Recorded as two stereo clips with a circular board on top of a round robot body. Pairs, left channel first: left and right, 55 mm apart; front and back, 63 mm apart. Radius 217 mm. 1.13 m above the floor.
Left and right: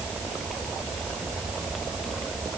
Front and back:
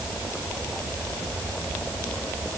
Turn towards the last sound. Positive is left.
No sound to turn to.